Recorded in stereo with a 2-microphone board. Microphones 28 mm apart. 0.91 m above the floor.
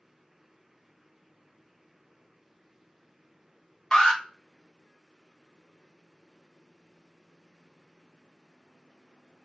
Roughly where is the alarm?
Left.